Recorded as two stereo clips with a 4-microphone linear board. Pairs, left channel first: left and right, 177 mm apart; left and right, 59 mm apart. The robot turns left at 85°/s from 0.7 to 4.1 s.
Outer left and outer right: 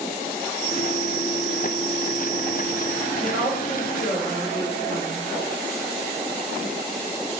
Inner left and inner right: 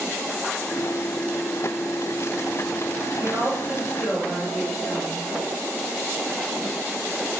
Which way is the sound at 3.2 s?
155° right.